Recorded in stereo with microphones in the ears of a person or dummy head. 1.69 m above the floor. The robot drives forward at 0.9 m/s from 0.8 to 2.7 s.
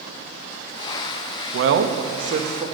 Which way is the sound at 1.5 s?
75° right (ahead or behind).